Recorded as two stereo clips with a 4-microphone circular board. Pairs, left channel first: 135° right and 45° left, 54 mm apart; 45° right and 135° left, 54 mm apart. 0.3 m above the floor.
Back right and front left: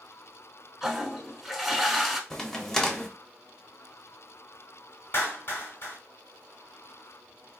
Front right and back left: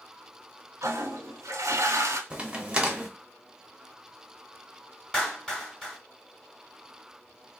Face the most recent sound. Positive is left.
turn(degrees=-120)